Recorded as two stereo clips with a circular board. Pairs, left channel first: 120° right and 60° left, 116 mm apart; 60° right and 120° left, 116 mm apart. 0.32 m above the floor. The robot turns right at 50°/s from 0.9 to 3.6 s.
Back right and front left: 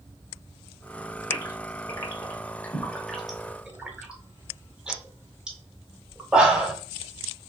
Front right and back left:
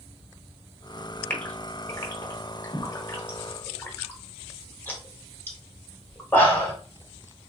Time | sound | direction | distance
1.3 | a gasp | 125° right | 0.9 m